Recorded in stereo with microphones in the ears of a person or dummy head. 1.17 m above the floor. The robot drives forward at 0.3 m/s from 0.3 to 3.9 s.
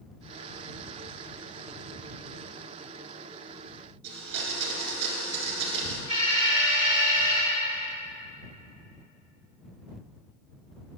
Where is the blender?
55° right (ahead or behind), 1.8 m.